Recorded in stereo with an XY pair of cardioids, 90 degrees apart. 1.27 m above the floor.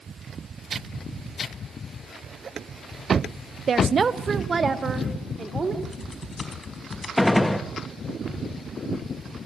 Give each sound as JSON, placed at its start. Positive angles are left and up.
{"t": 3.7, "sound": "a woman speaking", "azimuth_deg": -50, "distance_m": 0.9}
{"t": 5.8, "sound": "typing on a keyboard", "azimuth_deg": 35, "distance_m": 4.0}
{"t": 7.2, "sound": "a gunshot", "azimuth_deg": 10, "distance_m": 1.8}